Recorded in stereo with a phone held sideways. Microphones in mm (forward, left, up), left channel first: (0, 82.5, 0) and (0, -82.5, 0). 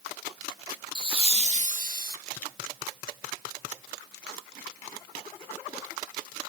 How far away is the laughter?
About 1.6 m.